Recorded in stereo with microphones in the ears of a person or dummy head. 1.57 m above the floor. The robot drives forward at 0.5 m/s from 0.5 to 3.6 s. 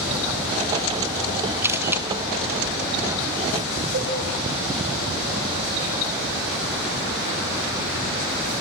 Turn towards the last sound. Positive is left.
turn(degrees=-40)  # may be behind; listen again after turning